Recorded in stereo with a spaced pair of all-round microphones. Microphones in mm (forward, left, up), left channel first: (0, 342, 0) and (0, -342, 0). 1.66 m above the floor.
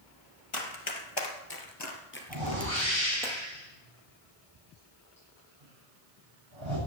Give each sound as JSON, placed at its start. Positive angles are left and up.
{"t": 0.5, "sound": "running footsteps", "side_deg": 45, "distance_m": 2.5}
{"t": 2.3, "sound": "a whoosh", "side_deg": -40, "distance_m": 7.0}